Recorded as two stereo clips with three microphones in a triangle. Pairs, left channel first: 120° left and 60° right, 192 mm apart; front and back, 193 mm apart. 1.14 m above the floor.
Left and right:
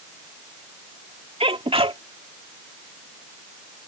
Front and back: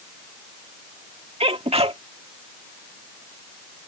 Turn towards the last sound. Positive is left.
turn(degrees=-120)